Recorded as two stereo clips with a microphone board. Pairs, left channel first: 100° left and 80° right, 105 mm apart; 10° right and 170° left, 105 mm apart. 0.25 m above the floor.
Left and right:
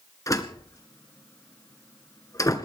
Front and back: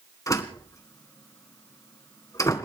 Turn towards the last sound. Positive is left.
turn(degrees=45)